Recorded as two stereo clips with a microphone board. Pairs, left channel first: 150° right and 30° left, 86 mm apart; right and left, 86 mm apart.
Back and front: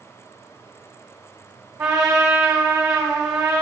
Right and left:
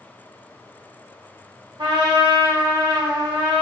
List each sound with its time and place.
1.8 s a trumpet: 80° left, 1.4 m